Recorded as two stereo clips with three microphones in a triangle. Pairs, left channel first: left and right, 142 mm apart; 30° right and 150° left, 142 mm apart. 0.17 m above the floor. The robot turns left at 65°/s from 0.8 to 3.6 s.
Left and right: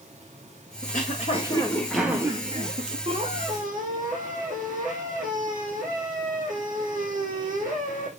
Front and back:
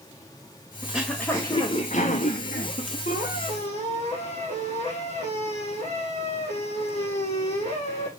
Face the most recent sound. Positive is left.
turn(degrees=-75)